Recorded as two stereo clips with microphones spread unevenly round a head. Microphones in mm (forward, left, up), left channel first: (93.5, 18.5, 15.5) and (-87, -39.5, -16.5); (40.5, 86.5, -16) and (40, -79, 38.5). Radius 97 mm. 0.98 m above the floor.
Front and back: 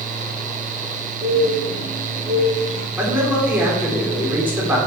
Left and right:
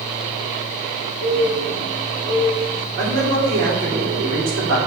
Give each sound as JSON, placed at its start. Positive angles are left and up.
{"t": 1.2, "sound": "a bird", "azimuth_deg": -80, "distance_m": 4.5}
{"t": 3.0, "sound": "a man speaking", "azimuth_deg": -80, "distance_m": 3.0}